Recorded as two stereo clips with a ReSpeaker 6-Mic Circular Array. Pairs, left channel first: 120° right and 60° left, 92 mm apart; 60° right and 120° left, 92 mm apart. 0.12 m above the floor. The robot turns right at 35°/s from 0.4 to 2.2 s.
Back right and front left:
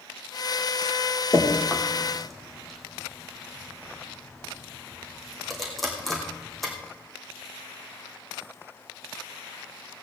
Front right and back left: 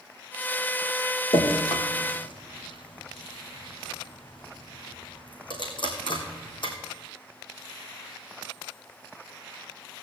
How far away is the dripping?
About 3 m.